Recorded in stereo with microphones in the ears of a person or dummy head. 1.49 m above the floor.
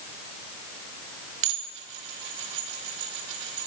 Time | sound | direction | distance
1.4 | dishes clattering | 70° right (ahead or behind) | 1.7 m